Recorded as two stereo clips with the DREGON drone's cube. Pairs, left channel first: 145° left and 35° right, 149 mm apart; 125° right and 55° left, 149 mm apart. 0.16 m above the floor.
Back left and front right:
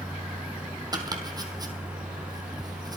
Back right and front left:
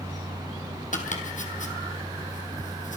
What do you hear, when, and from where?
0.9 s chopping: 95° right, 1.9 m